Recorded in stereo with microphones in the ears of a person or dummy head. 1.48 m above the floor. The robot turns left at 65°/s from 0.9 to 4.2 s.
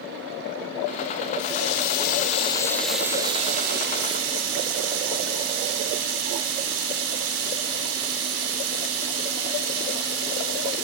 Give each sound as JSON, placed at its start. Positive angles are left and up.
{"t": 1.4, "sound": "a running tap", "azimuth_deg": 100, "distance_m": 3.0}